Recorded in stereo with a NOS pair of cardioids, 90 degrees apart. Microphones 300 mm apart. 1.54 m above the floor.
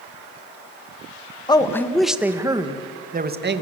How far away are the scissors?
No scissors in this recording.